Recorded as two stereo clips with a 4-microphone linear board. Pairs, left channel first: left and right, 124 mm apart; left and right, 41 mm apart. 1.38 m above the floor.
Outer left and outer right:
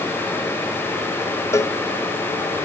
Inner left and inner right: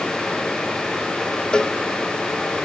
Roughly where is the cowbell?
Left.